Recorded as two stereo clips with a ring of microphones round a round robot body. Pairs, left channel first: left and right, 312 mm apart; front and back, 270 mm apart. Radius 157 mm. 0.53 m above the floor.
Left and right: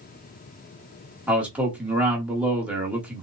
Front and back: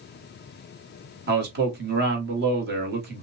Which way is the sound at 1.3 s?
175° right.